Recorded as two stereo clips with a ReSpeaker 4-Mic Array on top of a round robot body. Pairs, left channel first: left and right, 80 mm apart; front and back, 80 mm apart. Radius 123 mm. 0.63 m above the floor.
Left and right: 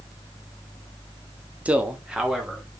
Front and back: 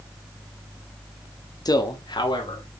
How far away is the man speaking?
About 1.6 m.